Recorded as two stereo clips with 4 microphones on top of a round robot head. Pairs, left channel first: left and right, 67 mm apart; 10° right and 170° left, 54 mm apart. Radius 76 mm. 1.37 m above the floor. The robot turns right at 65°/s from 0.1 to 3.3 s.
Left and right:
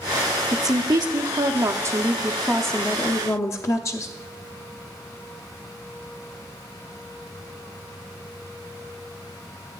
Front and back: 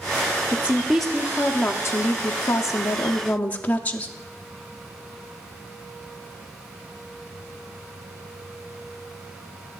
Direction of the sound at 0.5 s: 130° right.